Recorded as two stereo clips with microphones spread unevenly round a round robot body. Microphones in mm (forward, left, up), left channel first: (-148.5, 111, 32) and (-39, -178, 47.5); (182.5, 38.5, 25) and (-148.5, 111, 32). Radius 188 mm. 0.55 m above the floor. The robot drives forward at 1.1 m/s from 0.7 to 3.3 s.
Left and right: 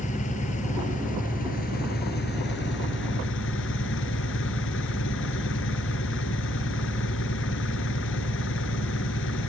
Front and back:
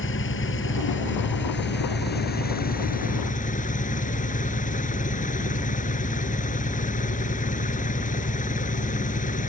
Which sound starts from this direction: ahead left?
An engine running, at 0.0 s.